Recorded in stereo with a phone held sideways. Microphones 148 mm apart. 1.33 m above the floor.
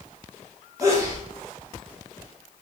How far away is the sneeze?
About 1.6 m.